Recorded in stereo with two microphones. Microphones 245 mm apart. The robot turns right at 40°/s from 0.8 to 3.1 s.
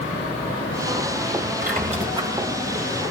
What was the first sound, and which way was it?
A squeak, 40° right (ahead or behind).